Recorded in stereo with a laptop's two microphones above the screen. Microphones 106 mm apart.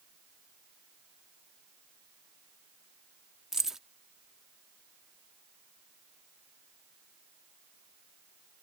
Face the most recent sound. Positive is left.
turn(degrees=-5)  # may be behind; listen again after turning